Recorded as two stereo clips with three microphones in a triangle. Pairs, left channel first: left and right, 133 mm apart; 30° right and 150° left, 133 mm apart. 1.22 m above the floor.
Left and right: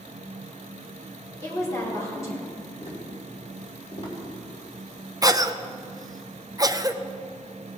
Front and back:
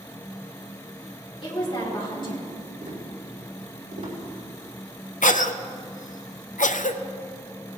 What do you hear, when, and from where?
1.4 s a woman speaking: 20° left, 4 m
2.8 s tapping: 130° left, 3 m
5.2 s a cough: 25° right, 0.7 m